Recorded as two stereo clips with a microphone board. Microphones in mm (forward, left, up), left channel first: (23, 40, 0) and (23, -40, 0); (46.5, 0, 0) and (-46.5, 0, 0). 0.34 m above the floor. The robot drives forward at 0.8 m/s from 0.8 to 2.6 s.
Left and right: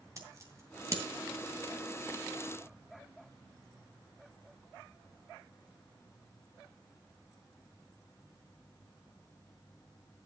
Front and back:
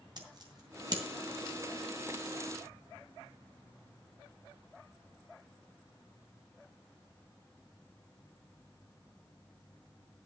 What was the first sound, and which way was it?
Scissors, 140° right.